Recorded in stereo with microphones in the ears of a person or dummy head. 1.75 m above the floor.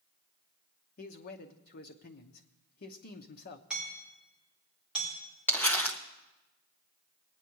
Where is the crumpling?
10° left (ahead or behind), 0.8 m.